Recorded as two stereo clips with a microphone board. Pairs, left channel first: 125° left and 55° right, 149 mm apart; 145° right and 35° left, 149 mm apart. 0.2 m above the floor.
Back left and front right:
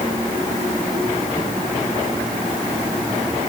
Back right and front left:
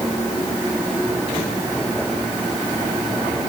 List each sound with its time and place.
Only background noise.